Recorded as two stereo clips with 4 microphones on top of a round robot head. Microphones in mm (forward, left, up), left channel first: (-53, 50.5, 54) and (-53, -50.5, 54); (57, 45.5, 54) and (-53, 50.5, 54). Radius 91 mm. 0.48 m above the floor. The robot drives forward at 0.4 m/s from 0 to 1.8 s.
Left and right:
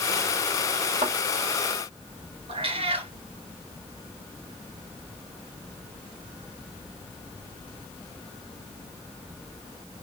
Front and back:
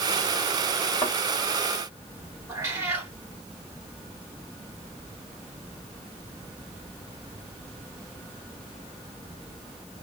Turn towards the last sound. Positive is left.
turn(degrees=-110)